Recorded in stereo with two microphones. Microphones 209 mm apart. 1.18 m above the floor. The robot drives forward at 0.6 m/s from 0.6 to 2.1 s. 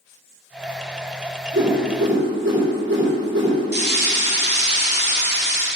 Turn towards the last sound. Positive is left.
turn(degrees=-50)  # may be behind; listen again after turning